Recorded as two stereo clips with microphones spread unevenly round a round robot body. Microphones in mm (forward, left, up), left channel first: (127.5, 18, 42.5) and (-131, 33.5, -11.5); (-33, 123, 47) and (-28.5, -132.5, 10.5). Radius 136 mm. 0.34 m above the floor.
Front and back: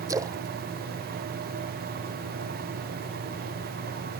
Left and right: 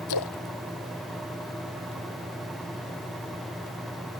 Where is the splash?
100° left.